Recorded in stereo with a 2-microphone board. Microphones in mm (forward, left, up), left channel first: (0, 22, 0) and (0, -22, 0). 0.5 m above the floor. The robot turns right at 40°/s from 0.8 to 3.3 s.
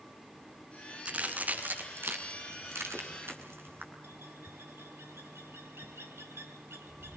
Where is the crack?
20° right (ahead or behind), 6.5 m; by 3.9 s 65° right (ahead or behind), 6.5 m.